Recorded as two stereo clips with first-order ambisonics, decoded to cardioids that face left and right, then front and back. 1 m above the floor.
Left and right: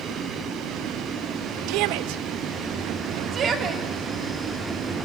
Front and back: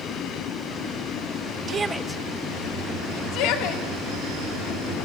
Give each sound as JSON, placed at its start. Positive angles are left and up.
{"t": 1.7, "sound": "a shout", "azimuth_deg": -120, "distance_m": 0.8}